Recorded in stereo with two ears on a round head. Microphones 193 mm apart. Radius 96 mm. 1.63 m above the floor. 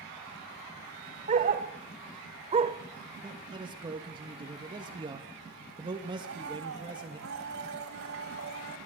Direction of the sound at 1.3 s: 35° right (ahead or behind).